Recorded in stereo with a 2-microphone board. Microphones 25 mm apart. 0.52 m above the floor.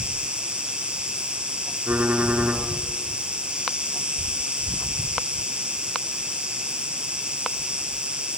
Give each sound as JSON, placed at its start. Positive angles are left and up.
{"t": 0.0, "sound": "an insect", "side_deg": -40, "distance_m": 4.0}
{"t": 1.9, "sound": "typing on a keyboard", "side_deg": -80, "distance_m": 4.0}